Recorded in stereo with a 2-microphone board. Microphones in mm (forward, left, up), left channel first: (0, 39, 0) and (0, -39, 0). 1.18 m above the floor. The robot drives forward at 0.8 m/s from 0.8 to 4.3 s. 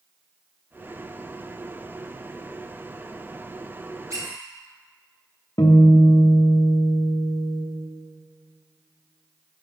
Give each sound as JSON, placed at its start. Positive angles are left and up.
{"t": 4.1, "sound": "a squeak", "side_deg": -45, "distance_m": 2.5}
{"t": 5.6, "sound": "a guitar", "side_deg": 60, "distance_m": 1.1}